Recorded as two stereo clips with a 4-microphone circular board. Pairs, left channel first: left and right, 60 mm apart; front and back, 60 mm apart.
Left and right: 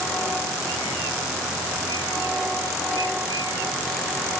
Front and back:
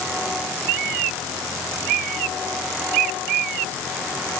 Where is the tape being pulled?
No tape being pulled in this recording.